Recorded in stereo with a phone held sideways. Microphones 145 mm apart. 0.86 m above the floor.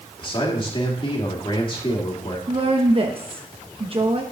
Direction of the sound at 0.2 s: 35° left (ahead or behind).